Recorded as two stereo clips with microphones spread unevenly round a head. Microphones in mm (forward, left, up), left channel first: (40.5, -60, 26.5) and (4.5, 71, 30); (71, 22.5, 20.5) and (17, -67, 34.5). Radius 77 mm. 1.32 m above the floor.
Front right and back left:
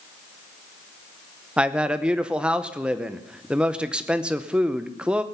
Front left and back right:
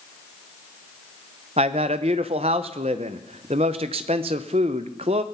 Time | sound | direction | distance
1.6 | a man speaking | 170° right | 0.7 m